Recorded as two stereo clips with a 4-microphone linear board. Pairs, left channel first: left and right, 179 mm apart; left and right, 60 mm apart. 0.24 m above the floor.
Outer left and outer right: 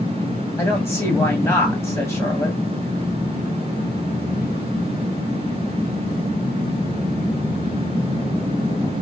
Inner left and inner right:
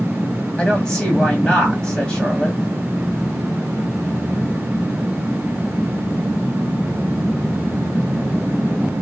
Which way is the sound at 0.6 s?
15° left (ahead or behind).